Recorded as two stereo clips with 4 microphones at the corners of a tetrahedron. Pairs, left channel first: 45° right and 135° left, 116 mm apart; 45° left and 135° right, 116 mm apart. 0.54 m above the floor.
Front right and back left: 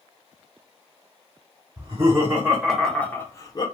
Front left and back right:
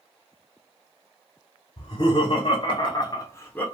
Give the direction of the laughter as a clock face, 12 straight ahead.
9 o'clock.